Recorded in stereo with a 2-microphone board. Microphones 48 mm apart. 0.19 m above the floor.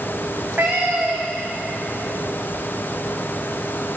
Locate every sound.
0.3 s a cat meowing: 40° right (ahead or behind), 3 m